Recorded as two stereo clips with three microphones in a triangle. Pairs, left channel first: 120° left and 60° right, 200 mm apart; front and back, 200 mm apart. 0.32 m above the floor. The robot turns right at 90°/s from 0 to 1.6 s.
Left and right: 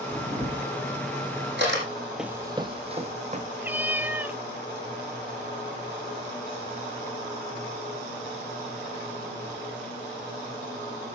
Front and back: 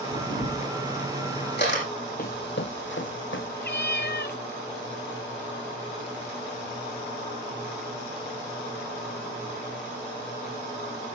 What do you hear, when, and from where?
0.1 s a camera shutter: 165° right, 8 m; by 1.8 s 30° right, 8 m
2.2 s running footsteps: 30° left, 0.5 m; by 3.5 s 5° right, 1.5 m
3.6 s a cat meowing: 20° left, 0.7 m